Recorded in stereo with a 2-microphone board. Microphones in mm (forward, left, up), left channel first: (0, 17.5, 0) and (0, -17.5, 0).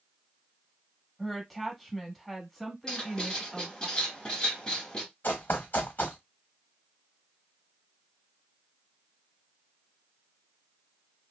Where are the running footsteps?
70° left (ahead or behind), 1.0 m.